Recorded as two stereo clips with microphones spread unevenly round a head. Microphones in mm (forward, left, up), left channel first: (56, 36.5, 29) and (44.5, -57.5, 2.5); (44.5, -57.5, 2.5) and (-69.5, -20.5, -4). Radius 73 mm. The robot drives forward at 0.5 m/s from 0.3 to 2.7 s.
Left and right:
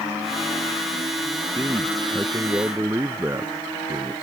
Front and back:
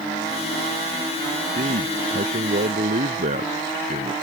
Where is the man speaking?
175° right.